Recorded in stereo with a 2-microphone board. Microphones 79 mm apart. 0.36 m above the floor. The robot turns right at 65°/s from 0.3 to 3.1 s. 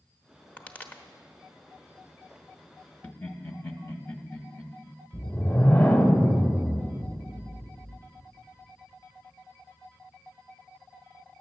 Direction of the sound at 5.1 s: 25° left (ahead or behind).